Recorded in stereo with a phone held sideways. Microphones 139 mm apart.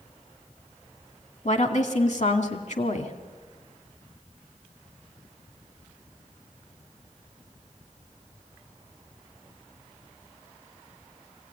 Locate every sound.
1.4 s a woman speaking: 55° left (ahead or behind), 2 m